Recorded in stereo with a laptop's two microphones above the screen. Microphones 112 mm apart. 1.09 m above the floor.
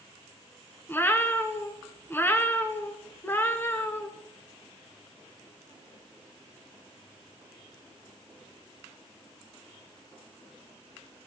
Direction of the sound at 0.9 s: 20° left (ahead or behind).